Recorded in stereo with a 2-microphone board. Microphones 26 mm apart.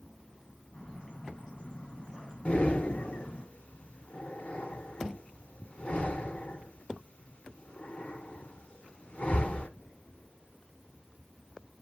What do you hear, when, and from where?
0.7 s a bird: 25° left (ahead or behind), 7 m
2.5 s breathing: 40° left (ahead or behind), 1.2 m